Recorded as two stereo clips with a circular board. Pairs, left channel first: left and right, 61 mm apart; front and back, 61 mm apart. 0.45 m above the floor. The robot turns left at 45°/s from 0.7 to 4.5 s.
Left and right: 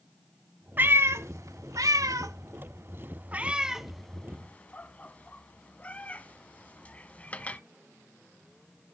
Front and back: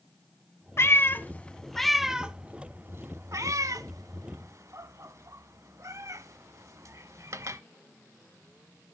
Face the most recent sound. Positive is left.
turn(degrees=155)